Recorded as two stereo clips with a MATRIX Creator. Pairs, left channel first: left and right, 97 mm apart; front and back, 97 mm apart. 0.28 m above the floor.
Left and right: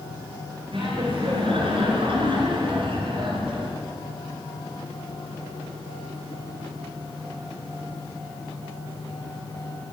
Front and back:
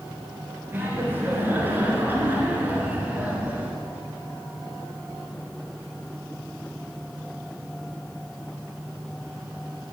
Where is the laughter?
115° right, 5 m; by 3.8 s 110° right, 3.5 m.